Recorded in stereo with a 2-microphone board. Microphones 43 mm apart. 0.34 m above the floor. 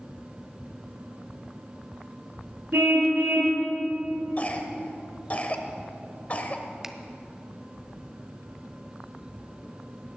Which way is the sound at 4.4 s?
35° left (ahead or behind).